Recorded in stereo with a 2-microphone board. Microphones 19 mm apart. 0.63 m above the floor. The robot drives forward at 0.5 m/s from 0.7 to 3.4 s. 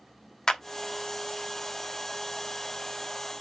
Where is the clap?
35° left (ahead or behind), 1.2 m.